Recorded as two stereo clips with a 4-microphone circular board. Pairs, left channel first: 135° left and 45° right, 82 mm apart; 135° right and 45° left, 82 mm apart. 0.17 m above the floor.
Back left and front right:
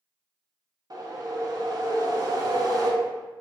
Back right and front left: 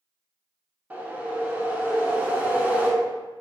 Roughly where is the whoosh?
Ahead right.